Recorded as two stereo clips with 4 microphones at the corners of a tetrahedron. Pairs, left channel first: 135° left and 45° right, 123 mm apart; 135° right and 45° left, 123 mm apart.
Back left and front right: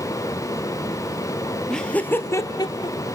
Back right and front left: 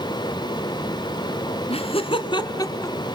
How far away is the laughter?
About 1.8 m.